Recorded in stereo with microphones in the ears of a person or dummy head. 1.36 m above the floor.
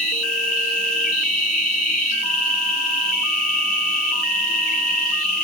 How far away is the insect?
About 4 m.